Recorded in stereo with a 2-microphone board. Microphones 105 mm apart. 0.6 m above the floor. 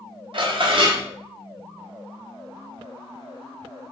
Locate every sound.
0.3 s dishes clattering: 50° right (ahead or behind), 0.6 m